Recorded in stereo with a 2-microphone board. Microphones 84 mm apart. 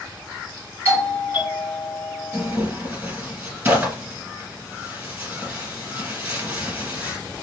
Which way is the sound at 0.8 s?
25° right (ahead or behind).